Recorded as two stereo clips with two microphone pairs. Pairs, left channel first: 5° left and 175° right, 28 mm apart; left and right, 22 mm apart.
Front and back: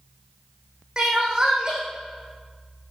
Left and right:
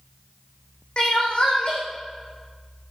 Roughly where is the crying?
Behind left.